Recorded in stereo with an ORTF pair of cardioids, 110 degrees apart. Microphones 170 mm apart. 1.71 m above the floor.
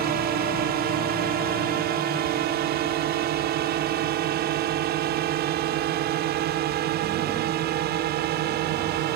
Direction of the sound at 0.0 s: 70° right.